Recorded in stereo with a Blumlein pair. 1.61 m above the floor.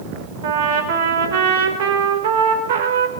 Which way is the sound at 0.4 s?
55° right.